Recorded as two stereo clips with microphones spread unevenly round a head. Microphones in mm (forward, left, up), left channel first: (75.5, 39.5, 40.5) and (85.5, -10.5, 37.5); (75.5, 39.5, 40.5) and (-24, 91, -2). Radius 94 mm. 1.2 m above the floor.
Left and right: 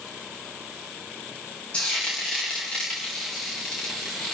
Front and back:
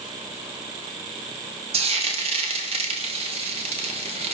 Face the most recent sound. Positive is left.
turn(degrees=180)